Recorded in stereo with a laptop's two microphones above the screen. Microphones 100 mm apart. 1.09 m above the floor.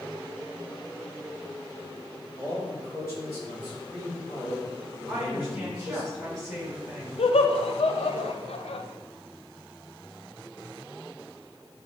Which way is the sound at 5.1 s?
5° right (ahead or behind).